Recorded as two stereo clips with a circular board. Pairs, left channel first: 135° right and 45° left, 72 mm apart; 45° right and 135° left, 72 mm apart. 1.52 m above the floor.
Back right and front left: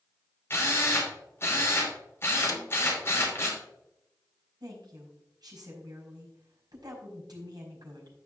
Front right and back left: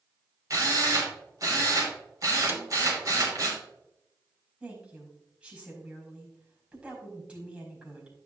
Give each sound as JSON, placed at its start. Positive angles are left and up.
{"t": 0.5, "sound": "a drill", "azimuth_deg": 170, "distance_m": 3.5}
{"t": 2.5, "sound": "a snare drum", "azimuth_deg": -165, "distance_m": 1.0}
{"t": 4.6, "sound": "a woman speaking", "azimuth_deg": 60, "distance_m": 4.5}